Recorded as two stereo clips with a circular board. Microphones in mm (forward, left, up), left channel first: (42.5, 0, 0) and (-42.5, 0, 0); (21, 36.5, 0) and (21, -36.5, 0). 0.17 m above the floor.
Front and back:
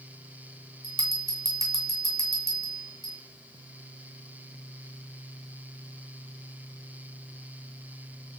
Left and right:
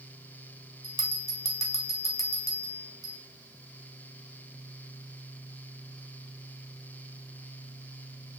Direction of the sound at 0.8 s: 45° right.